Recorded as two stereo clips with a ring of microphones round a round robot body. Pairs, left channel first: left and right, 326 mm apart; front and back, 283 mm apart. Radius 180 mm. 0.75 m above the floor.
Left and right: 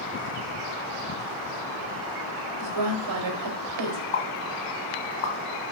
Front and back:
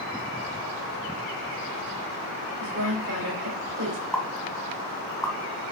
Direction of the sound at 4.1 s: 85° left.